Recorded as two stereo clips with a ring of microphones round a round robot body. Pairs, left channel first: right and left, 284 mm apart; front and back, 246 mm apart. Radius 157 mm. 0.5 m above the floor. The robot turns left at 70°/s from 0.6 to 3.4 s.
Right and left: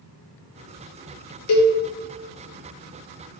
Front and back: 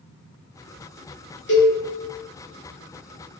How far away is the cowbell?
About 0.7 m.